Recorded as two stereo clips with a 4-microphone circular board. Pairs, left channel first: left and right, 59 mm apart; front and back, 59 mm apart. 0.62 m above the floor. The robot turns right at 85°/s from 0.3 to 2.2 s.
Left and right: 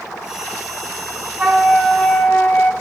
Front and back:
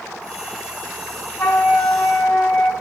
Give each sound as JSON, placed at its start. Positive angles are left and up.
{"t": 1.4, "sound": "a flute", "azimuth_deg": -30, "distance_m": 1.1}